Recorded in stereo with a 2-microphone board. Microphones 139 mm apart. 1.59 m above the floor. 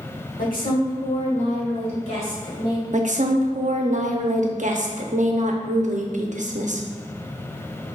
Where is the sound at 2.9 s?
60° right (ahead or behind), 0.6 m.